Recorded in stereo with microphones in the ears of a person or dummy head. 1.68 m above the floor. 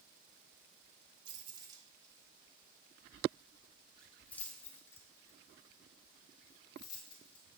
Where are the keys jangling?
35° right (ahead or behind), 3 m; by 7.4 s 30° left (ahead or behind), 6 m.